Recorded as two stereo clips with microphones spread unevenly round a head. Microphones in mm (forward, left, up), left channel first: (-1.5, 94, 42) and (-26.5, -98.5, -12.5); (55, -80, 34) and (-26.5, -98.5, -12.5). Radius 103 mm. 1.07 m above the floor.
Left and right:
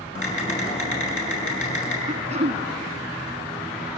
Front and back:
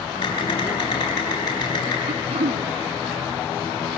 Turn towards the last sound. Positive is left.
turn(degrees=-160)